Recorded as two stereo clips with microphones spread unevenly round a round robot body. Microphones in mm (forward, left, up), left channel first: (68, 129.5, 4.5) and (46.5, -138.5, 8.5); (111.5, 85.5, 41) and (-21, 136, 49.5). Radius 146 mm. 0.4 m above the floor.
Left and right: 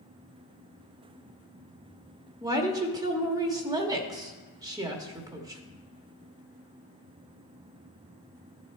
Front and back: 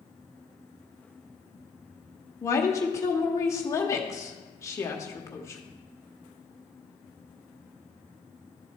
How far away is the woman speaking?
About 0.8 m.